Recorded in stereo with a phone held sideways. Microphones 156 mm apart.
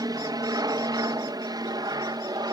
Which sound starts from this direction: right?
An aircraft, at 0.0 s.